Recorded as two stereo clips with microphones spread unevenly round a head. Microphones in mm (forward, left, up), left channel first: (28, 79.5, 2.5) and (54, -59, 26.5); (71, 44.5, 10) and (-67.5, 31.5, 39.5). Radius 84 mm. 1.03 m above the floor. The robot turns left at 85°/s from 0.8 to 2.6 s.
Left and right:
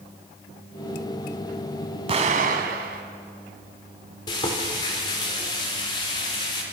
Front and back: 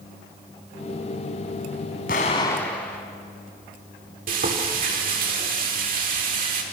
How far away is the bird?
I don't hear a bird.